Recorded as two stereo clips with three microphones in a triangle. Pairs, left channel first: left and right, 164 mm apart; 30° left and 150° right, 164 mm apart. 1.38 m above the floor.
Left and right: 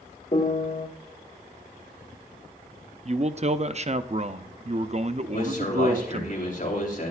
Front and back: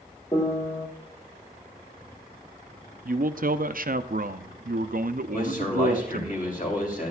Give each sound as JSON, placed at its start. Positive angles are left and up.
{"t": 0.3, "sound": "a piano", "azimuth_deg": 75, "distance_m": 1.4}
{"t": 3.0, "sound": "a man speaking", "azimuth_deg": -135, "distance_m": 0.5}
{"t": 5.3, "sound": "a man speaking", "azimuth_deg": 60, "distance_m": 3.0}